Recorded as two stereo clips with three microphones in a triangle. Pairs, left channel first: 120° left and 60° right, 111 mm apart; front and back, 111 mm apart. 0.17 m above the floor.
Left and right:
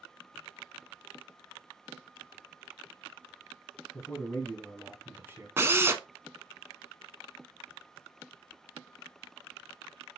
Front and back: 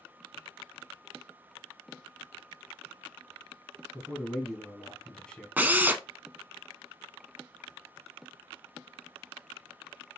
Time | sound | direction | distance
3.9 | a man speaking | 105° left | 1.3 m
5.6 | a drill | 115° right | 0.6 m